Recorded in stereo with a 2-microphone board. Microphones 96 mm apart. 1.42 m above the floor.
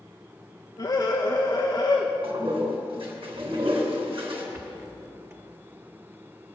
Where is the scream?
45° left (ahead or behind), 1.0 m.